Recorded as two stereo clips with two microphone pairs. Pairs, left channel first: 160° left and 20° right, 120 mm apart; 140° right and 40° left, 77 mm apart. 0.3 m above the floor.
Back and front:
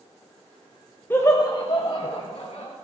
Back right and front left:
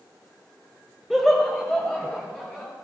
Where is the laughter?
125° left, 1.1 m; by 2.7 s 145° left, 2.5 m.